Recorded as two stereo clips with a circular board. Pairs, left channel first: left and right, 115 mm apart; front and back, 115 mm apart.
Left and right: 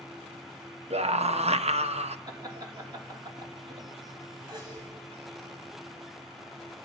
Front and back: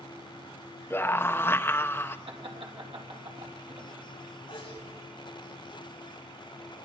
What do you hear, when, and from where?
0.9 s a scream: 70° right, 0.9 m
2.3 s laughter: 145° right, 3.5 m
4.5 s a sneeze: 40° right, 8 m